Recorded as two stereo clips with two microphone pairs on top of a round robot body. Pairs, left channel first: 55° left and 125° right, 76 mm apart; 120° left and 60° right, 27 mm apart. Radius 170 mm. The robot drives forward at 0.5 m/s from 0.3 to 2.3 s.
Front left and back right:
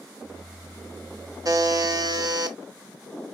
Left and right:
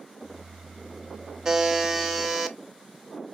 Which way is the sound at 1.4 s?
110° right.